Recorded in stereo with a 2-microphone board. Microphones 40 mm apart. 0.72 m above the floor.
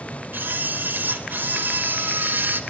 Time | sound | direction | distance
0.3 | a camera shutter | 60° right (ahead or behind) | 3 m